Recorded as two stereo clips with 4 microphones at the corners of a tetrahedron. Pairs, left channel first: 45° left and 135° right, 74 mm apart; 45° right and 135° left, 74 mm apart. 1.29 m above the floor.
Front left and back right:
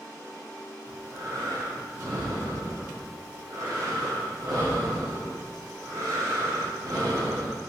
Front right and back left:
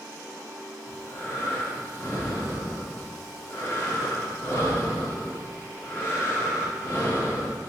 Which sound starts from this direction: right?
Breathing, at 0.9 s.